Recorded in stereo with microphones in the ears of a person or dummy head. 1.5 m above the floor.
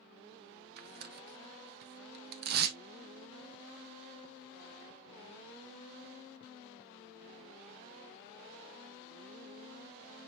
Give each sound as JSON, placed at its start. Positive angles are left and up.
{"t": 0.8, "sound": "tearing paper", "side_deg": -60, "distance_m": 0.9}